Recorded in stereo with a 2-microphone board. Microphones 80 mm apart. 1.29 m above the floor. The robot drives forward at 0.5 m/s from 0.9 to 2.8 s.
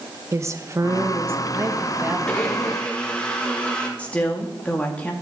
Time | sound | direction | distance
0.3 | a woman speaking | 35° right (ahead or behind) | 1.2 m
2.3 | a blender | 15° left (ahead or behind) | 1.9 m
4.0 | a woman speaking | 15° left (ahead or behind) | 2 m